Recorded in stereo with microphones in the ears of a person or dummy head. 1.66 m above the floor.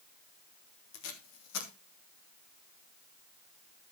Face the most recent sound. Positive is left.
turn(degrees=80)